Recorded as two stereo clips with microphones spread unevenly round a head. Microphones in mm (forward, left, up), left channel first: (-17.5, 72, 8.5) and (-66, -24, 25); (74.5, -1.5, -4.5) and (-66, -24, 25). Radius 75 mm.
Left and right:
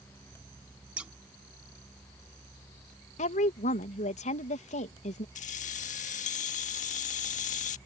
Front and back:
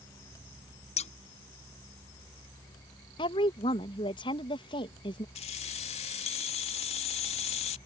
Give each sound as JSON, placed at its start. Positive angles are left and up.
{"t": 1.0, "sound": "scissors", "azimuth_deg": -35}
{"t": 3.2, "sound": "a woman speaking", "azimuth_deg": 65}
{"t": 5.3, "sound": "keys jangling", "azimuth_deg": 65}